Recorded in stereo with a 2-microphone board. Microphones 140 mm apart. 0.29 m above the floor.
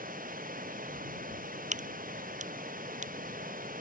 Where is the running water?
85° right.